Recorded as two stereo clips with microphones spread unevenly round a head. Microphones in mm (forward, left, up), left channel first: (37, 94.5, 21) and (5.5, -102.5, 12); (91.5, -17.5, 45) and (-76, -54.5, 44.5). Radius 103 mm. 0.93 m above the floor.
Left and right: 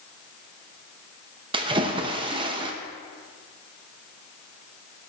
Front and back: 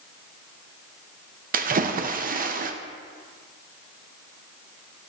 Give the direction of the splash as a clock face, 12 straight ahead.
5 o'clock.